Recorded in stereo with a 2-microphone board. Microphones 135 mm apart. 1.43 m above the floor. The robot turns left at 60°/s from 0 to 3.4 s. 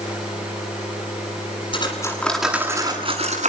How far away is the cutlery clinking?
About 9 m.